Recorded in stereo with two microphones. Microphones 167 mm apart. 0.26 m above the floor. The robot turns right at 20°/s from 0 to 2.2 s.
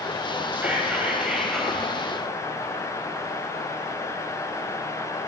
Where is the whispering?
10° right (ahead or behind), 1.6 m; by 1.8 s centre (ahead or behind), 1.6 m.